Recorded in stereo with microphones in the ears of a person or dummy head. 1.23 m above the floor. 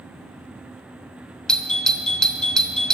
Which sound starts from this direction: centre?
A doorbell, at 1.5 s.